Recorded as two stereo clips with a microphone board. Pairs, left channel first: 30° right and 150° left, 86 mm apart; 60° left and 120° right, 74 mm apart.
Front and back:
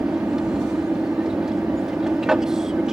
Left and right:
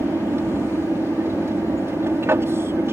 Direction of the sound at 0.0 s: 130° right.